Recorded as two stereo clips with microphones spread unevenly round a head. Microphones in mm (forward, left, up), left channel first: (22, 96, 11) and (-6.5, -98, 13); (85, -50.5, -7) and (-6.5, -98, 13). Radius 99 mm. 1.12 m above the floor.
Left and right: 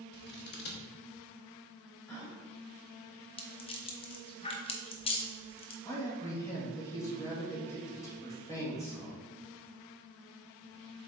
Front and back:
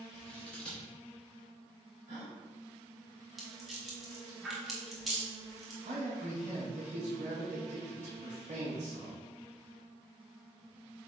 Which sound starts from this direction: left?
Scissors, at 0.1 s.